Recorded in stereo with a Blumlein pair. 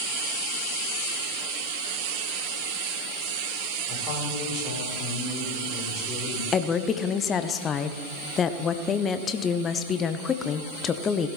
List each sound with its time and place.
3.9 s a man speaking: 35° left, 6.5 m; by 6.4 s 25° left, 7.5 m
6.5 s a woman speaking: 25° left, 1.0 m